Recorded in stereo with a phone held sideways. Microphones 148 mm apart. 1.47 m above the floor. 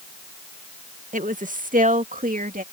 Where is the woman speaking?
60° right (ahead or behind); by 2.6 s 70° right (ahead or behind).